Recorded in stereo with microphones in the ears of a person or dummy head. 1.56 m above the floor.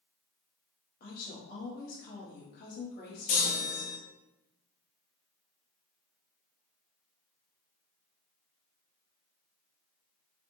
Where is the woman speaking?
50° left (ahead or behind), 0.9 m.